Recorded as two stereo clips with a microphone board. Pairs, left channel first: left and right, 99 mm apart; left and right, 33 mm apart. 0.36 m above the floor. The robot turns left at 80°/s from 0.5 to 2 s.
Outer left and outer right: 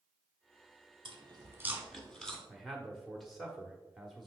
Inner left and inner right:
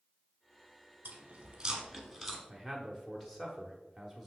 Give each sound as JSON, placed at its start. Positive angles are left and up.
{"t": 1.1, "sound": "chewing", "side_deg": -70, "distance_m": 1.2}
{"t": 2.5, "sound": "a man speaking", "side_deg": 0, "distance_m": 0.9}